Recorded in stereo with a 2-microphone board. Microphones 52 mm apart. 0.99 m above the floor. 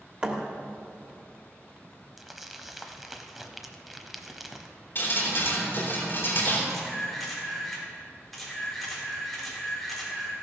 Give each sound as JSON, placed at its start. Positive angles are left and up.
{"t": 0.2, "sound": "a thud", "side_deg": -20, "distance_m": 1.3}
{"t": 2.2, "sound": "crumpling", "side_deg": -5, "distance_m": 0.9}
{"t": 5.0, "sound": "dripping", "side_deg": 40, "distance_m": 3.5}
{"t": 6.7, "sound": "a camera shutter", "side_deg": 0, "distance_m": 3.0}